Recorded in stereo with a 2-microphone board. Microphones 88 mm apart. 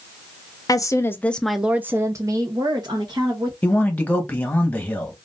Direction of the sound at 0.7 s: 45° left (ahead or behind).